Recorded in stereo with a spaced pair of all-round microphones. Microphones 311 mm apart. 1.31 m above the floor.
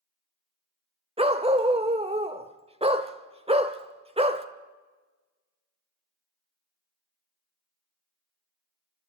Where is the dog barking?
20° right (ahead or behind), 1.1 m.